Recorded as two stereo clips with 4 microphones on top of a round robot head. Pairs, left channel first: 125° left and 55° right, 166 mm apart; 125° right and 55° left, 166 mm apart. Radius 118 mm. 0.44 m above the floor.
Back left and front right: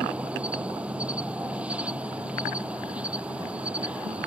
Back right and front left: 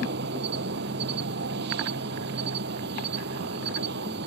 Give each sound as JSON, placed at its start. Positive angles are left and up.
{"t": 0.0, "sound": "an insect", "azimuth_deg": 30}